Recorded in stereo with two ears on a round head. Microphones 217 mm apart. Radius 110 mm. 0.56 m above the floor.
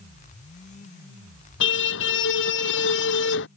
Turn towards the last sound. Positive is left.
turn(degrees=50)  # may be behind; listen again after turning